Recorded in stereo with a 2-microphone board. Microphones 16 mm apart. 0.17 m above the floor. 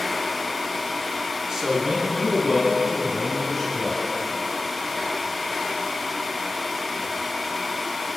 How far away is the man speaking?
About 2 m.